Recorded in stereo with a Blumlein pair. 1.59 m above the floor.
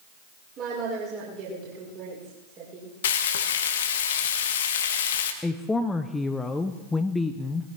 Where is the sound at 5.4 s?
10° left, 0.7 m.